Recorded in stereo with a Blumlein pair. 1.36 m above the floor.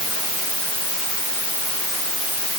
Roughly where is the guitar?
I don't hear a guitar.